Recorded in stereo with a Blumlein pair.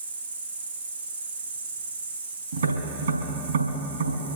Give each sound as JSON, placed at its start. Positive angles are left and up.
{"t": 0.0, "sound": "an insect", "azimuth_deg": -65, "distance_m": 4.5}
{"t": 2.5, "sound": "tapping", "azimuth_deg": -65, "distance_m": 5.0}